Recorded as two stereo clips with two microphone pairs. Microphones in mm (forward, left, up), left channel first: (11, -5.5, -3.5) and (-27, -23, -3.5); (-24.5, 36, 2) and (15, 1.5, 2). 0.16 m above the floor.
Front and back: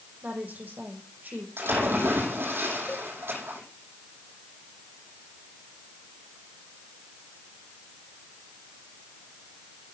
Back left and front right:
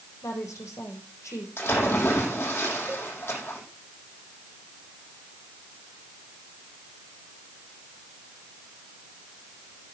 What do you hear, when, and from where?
0.2 s a woman speaking: 160° left, 6.5 m
1.6 s a splash: straight behind, 5.5 m
2.9 s a cowbell: 40° right, 2.0 m